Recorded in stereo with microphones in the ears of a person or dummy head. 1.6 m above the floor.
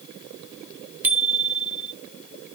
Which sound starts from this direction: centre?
A bicycle bell, at 1.0 s.